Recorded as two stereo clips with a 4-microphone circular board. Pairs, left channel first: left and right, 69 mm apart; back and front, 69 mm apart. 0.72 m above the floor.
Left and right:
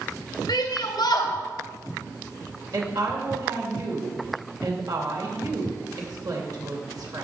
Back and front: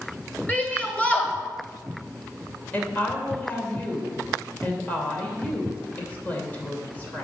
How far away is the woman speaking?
About 2.5 m.